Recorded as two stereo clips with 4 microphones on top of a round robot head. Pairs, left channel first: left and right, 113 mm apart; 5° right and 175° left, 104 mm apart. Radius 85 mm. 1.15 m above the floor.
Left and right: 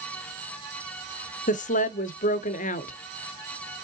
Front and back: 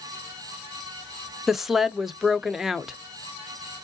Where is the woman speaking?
85° left, 0.6 m.